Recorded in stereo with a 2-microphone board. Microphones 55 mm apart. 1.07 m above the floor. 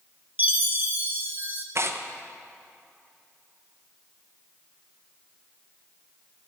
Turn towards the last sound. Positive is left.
turn(degrees=-50)  # may be behind; listen again after turning